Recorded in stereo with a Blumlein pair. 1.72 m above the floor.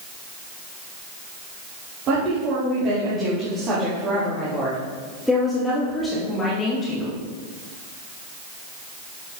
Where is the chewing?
No chewing in this recording.